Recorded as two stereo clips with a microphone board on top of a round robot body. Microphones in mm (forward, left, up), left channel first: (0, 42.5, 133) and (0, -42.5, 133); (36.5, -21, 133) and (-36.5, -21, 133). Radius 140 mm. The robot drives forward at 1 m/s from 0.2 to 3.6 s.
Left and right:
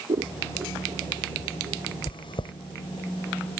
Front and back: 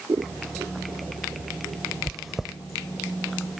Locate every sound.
0.1 s scissors: 125° right; by 1.9 s 135° right
2.1 s chewing: 85° left; by 2.5 s 95° left